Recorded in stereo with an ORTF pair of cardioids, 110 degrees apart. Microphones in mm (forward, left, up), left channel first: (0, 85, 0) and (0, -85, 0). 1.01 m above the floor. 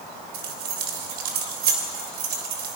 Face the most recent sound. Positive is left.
turn(degrees=-70)